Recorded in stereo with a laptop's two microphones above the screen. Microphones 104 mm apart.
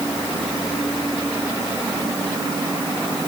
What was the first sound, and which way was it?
Only background noise.